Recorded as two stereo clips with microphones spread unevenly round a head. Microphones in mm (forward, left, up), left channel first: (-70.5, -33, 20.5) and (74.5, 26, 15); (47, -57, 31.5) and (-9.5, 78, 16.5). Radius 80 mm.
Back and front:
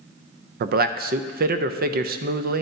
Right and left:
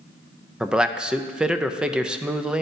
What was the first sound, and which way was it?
A man speaking, 35° left.